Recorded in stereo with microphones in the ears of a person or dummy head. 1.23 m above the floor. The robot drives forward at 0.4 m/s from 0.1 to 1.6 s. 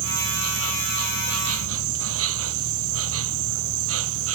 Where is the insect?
80° right; by 4.4 s 75° right (ahead or behind).